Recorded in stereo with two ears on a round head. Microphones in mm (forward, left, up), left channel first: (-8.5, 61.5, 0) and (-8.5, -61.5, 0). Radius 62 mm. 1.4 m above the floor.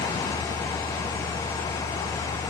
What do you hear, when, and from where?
Only background noise.